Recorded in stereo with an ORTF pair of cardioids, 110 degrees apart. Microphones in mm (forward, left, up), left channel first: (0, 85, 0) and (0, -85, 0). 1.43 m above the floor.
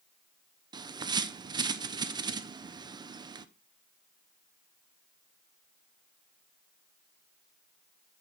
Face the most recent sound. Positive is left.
turn(degrees=-25)